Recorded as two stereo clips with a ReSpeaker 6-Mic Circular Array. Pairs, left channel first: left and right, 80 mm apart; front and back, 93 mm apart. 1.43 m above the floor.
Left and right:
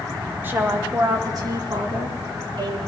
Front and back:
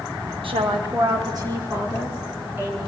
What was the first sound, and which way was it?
A woman speaking, 155° right.